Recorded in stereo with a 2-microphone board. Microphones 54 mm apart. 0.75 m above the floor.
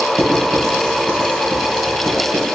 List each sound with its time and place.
0.2 s writing: 70° right (ahead or behind), 3 m